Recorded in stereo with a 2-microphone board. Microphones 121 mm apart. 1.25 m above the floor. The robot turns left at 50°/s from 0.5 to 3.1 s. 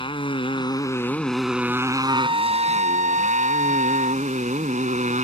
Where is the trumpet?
30° right; by 4.2 s 85° right.